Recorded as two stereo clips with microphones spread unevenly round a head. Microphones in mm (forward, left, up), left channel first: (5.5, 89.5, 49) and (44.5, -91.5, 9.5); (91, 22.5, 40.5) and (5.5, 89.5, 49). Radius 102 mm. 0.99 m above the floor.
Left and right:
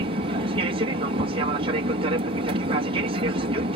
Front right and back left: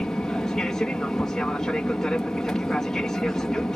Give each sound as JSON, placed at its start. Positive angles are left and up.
{"t": 0.0, "sound": "an aircraft", "azimuth_deg": -120}